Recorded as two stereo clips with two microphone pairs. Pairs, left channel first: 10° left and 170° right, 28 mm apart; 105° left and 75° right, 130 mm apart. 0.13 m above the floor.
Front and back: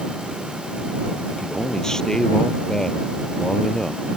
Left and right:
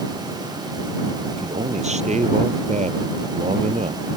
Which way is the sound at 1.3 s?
55° right.